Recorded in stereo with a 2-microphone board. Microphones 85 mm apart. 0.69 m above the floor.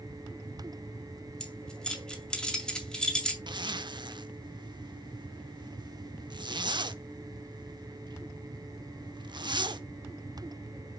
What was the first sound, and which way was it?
Keys jangling, 10° left (ahead or behind).